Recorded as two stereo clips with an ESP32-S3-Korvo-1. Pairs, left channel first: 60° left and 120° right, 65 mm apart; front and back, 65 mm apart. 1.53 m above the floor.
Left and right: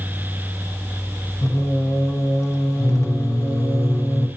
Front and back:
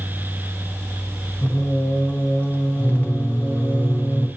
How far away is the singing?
About 1.0 m.